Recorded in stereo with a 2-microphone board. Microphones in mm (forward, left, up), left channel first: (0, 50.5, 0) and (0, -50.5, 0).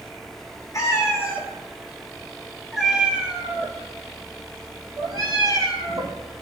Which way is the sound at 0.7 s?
30° left (ahead or behind).